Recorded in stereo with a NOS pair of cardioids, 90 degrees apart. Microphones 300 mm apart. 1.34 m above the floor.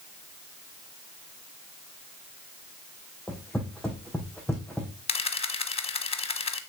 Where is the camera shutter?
20° left, 1.1 m.